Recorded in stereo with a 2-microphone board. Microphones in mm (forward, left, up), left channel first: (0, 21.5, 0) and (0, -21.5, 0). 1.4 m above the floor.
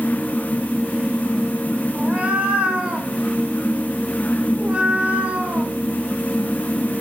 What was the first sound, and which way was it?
A cat meowing, 25° right (ahead or behind).